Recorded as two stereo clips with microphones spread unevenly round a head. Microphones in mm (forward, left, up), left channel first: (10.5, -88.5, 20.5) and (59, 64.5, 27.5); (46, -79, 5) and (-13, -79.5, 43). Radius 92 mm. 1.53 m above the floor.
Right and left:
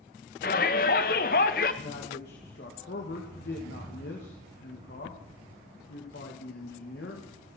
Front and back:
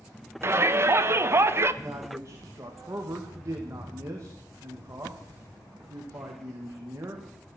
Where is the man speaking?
135° right, 2.5 m.